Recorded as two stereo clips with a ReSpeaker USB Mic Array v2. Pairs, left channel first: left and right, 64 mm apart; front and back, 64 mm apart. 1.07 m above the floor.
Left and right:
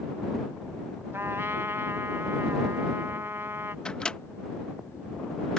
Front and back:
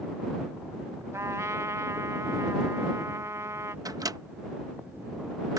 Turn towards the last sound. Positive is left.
turn(degrees=165)